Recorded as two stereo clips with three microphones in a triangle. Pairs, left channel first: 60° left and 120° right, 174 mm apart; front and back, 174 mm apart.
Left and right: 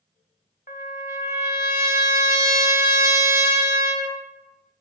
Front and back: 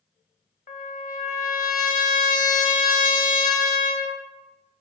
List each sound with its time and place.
0.7 s a trumpet: 25° left, 0.6 m